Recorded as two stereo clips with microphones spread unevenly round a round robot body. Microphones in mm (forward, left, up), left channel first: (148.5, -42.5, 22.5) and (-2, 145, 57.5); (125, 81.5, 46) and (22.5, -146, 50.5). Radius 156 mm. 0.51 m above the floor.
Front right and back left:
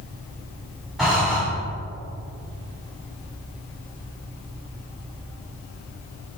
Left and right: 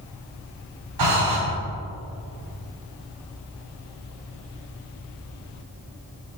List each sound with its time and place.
1.0 s breathing: 140° right, 3.5 m